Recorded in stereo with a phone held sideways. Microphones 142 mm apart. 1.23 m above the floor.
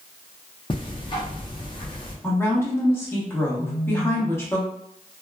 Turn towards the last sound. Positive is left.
turn(degrees=20)  # may be behind; listen again after turning